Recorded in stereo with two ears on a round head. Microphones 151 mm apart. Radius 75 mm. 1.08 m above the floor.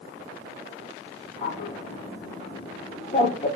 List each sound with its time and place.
1.4 s a bird: 35° left (ahead or behind), 0.7 m